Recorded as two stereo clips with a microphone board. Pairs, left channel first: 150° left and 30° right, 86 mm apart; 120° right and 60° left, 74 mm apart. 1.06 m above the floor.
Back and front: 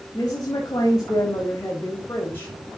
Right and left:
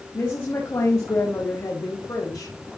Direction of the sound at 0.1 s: 170° right.